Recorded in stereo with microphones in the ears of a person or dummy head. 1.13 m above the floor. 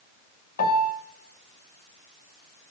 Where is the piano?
50° left (ahead or behind), 1.9 m.